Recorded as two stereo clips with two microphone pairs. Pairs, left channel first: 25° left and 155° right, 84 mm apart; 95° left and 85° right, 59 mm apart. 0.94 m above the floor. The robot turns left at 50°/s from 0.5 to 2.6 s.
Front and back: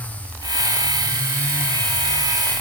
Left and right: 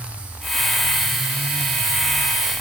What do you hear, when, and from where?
Only background noise.